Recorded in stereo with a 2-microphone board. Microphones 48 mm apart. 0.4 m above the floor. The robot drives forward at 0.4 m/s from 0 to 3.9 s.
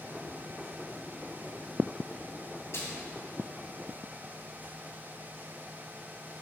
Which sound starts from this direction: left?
A splash, at 2.7 s.